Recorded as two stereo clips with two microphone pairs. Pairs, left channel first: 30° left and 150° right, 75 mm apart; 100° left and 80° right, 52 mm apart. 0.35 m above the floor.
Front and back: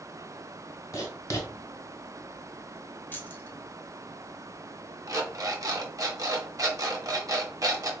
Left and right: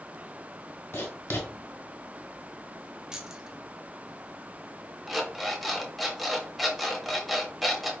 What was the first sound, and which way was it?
Writing, 70° left.